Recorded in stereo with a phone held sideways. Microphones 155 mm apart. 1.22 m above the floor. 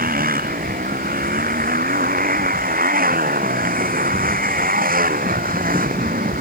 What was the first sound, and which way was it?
A motorcycle, 70° right (ahead or behind).